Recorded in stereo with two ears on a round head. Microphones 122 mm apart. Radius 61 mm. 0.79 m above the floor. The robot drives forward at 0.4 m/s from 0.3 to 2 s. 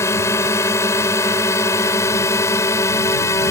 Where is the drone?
20° left (ahead or behind).